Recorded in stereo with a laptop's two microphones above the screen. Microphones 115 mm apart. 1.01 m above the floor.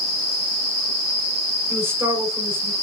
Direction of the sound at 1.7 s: 20° right (ahead or behind).